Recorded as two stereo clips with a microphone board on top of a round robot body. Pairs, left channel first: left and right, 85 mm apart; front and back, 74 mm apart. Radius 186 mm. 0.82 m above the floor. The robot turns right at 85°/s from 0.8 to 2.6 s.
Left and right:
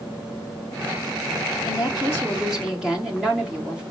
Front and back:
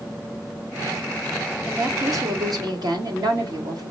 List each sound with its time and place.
1.6 s a woman speaking: 110° left, 1.7 m; by 3.8 s 170° right, 1.7 m